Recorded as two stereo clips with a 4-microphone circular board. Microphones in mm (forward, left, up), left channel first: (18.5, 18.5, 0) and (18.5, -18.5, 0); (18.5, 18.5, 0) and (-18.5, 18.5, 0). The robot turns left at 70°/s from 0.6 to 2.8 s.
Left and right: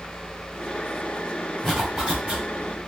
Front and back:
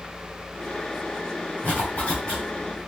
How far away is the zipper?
About 2 m.